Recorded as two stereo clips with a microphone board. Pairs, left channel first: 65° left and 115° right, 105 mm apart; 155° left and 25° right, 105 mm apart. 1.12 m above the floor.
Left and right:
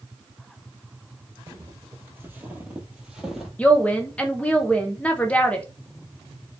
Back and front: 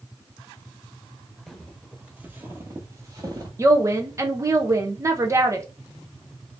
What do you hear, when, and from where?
1.5 s footsteps: 115° right, 1.2 m; by 3.5 s 25° right, 1.4 m
3.6 s a woman speaking: straight ahead, 0.6 m